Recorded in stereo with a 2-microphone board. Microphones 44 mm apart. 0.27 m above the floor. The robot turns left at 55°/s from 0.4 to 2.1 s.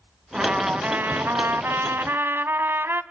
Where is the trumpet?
20° right, 0.9 m; by 3.0 s 115° right, 0.9 m.